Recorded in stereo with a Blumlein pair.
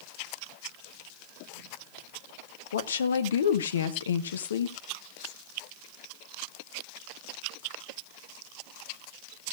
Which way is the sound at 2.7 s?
65° left.